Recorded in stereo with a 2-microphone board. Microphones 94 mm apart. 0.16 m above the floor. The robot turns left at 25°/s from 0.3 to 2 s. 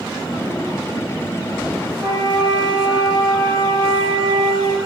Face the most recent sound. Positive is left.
turn(degrees=-5)  # may be behind; listen again after turning